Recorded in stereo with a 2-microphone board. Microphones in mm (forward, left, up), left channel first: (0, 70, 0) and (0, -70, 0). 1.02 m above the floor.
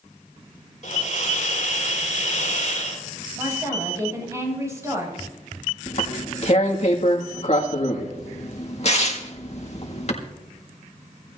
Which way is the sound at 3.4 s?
20° right (ahead or behind).